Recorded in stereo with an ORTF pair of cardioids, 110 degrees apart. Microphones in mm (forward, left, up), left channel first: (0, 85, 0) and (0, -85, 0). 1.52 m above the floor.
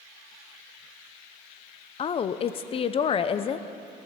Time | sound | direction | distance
2.0 | a woman speaking | 35° left | 0.5 m